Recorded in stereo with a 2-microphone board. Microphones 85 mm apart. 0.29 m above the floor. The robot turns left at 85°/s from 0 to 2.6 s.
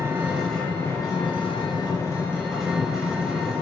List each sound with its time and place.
0.0 s an engine running: 135° right, 3 m; by 3.6 s 5° left, 3 m